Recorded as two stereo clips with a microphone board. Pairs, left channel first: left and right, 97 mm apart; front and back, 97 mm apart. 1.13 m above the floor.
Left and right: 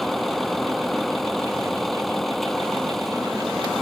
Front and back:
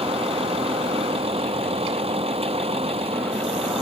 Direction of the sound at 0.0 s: Straight behind.